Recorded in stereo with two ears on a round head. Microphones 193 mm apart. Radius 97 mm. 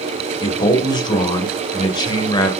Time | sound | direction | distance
0.4 | a man speaking | 20° left (ahead or behind) | 2 m